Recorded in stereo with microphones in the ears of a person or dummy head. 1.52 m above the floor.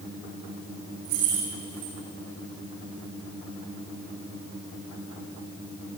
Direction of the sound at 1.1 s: 70° right (ahead or behind).